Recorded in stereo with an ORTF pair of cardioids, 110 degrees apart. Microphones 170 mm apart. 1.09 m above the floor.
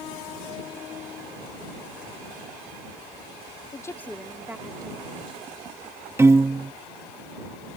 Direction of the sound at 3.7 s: 20° left.